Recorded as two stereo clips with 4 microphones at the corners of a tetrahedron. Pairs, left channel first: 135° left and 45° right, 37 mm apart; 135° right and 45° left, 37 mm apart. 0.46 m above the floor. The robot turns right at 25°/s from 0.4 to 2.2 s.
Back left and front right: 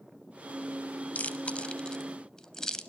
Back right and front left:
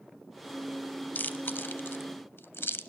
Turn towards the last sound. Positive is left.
turn(degrees=-150)